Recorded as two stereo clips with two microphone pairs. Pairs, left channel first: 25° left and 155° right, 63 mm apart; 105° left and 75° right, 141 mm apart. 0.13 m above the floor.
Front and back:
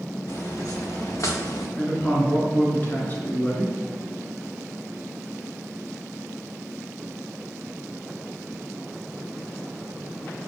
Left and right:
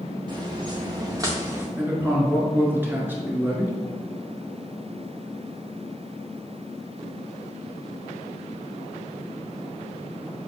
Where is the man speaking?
10° right, 1.3 m.